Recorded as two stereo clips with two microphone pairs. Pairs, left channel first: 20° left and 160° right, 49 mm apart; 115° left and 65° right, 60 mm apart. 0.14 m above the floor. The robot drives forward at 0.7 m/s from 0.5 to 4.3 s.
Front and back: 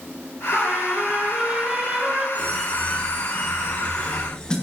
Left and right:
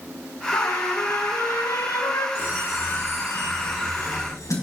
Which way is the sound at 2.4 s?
75° left.